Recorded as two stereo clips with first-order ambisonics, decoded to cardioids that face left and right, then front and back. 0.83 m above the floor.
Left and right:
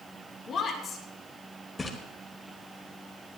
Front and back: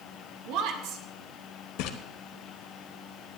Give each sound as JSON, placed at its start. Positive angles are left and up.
{"t": 0.5, "sound": "a woman speaking", "azimuth_deg": 155, "distance_m": 2.5}
{"t": 1.8, "sound": "a splash", "azimuth_deg": 15, "distance_m": 1.4}